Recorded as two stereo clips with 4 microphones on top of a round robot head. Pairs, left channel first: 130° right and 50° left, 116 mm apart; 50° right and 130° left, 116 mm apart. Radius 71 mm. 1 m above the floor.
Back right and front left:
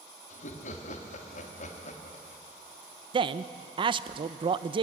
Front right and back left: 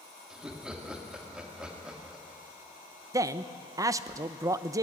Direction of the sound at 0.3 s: 145° right.